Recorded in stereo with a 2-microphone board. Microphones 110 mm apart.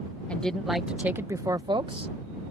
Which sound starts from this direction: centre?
A woman speaking, at 0.3 s.